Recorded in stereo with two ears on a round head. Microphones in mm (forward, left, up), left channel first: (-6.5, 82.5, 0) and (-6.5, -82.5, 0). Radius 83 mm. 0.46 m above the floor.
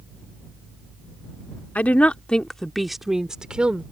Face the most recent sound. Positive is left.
turn(degrees=-5)  # may be behind; listen again after turning